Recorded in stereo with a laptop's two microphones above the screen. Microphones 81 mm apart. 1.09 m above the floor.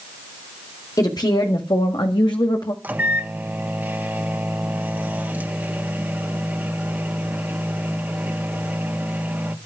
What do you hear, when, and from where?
1.0 s a woman speaking: 50° left (ahead or behind), 2.5 m; by 2.7 s 60° left (ahead or behind), 1.7 m
2.8 s a microwave: 20° right (ahead or behind), 1.3 m